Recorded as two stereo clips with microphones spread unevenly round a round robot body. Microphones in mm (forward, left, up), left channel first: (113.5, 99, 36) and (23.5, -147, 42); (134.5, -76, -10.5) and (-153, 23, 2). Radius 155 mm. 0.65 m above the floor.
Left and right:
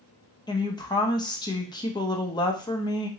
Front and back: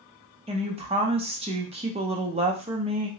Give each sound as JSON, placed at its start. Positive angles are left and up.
{"t": 0.5, "sound": "a woman speaking", "azimuth_deg": 115, "distance_m": 0.6}